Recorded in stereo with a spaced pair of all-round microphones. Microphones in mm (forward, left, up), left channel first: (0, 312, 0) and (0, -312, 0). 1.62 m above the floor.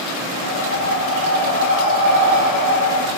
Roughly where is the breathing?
Left.